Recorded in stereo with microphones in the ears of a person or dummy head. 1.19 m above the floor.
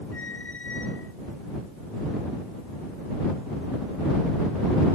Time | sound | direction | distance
0.1 | a squeak | 10° left (ahead or behind) | ?